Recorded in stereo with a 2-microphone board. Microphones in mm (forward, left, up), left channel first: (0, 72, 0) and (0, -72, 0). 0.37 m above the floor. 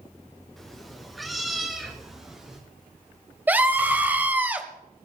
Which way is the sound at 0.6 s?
Centre (ahead or behind).